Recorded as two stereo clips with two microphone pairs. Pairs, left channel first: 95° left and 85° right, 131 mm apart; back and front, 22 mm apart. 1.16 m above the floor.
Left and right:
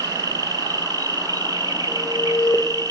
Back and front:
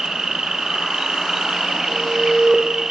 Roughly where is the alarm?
Ahead left.